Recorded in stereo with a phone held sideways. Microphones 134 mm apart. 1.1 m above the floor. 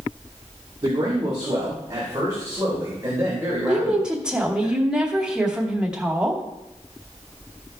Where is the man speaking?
35° right (ahead or behind), 3 m; by 4.7 s 20° right (ahead or behind), 5 m.